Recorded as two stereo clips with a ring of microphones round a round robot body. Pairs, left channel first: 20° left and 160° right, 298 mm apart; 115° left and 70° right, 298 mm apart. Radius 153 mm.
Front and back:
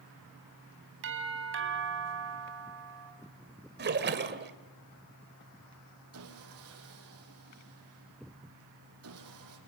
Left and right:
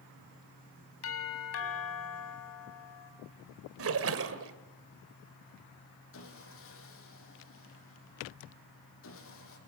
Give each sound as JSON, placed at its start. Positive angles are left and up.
{"t": 1.0, "sound": "a doorbell", "azimuth_deg": 155, "distance_m": 4.0}
{"t": 3.8, "sound": "a splash", "azimuth_deg": -105, "distance_m": 2.0}
{"t": 6.1, "sound": "sawing", "azimuth_deg": 160, "distance_m": 5.5}